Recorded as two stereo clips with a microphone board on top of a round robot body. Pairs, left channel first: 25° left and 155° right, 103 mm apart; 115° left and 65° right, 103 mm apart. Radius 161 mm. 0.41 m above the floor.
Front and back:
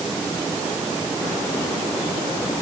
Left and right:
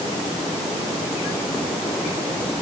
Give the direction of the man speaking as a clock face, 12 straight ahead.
No man speaking in this recording.